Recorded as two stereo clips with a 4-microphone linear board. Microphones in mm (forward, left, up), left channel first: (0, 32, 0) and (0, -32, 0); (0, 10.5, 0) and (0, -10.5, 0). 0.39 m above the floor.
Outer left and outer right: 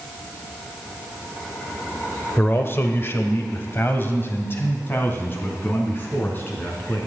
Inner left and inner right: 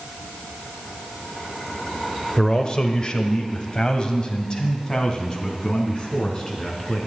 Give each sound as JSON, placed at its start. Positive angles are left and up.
{"t": 2.4, "sound": "a man speaking", "side_deg": 35, "distance_m": 1.3}